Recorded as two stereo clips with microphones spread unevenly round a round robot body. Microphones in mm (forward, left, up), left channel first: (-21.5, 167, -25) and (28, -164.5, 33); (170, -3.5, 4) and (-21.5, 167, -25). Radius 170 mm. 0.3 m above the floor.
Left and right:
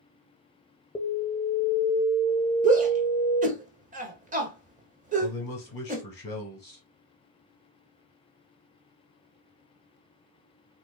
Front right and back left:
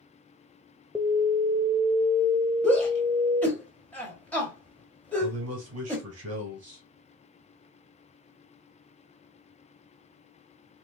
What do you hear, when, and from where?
0.9 s an alarm: 75° left, 0.7 m
2.6 s a shout: 135° right, 1.0 m
5.2 s a man speaking: 150° left, 2.5 m